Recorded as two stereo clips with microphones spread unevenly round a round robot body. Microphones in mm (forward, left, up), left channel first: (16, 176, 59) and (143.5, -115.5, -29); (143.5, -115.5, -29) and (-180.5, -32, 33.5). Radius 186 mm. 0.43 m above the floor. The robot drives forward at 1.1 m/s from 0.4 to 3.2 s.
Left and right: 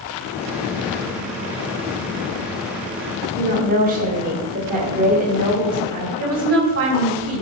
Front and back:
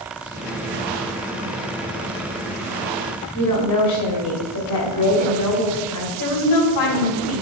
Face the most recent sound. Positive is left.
turn(degrees=-35)